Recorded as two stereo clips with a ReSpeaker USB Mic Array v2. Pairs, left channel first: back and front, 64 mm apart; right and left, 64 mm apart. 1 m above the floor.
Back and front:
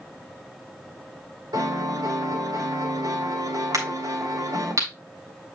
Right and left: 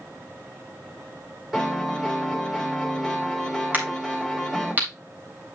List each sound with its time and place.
1.5 s a piano: 5° left, 3.5 m
3.7 s a crack: 30° left, 4 m